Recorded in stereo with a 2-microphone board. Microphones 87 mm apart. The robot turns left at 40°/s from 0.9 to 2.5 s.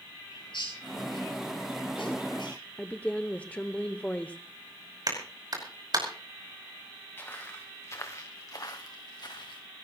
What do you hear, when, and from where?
0.3 s a bird: 60° left (ahead or behind), 9.5 m; by 2.6 s 55° left (ahead or behind), 9.5 m
2.8 s a woman speaking: 15° left (ahead or behind), 0.9 m
5.1 s a clap: 50° right (ahead or behind), 5.5 m
7.2 s footsteps: 25° left (ahead or behind), 2.5 m; by 9.6 s 55° left (ahead or behind), 2.5 m